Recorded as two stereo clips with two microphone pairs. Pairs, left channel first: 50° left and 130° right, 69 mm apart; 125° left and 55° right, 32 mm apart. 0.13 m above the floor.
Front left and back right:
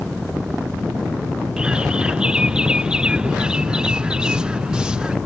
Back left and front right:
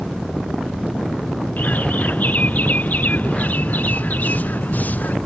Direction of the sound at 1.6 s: 155° left.